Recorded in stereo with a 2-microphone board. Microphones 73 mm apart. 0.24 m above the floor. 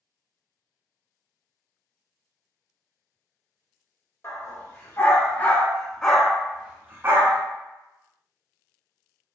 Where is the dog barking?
40° left (ahead or behind), 1.5 m; by 7.4 s 50° right (ahead or behind), 0.8 m.